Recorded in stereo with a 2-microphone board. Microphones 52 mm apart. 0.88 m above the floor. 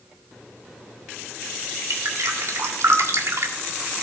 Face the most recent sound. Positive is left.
turn(degrees=-70)  # may be behind; listen again after turning